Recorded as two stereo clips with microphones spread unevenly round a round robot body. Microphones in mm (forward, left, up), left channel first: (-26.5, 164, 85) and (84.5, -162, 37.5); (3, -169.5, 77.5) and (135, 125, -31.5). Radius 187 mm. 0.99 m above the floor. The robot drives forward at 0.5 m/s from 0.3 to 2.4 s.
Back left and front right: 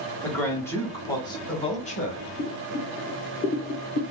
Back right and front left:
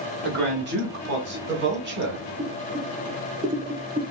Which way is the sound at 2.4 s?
35° left.